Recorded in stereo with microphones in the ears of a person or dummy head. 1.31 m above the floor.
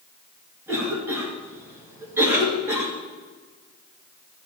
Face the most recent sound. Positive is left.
turn(degrees=-15)  # may be behind; listen again after turning